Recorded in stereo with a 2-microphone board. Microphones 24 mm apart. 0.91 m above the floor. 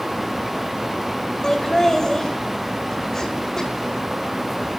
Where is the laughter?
20° left (ahead or behind), 4.5 m.